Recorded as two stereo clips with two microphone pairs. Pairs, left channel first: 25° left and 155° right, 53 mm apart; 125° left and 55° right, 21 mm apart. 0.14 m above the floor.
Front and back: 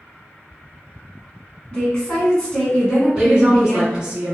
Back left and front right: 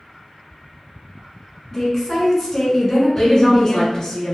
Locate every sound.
1.7 s a woman speaking: 75° left, 1.2 m
3.1 s a woman speaking: 155° left, 1.5 m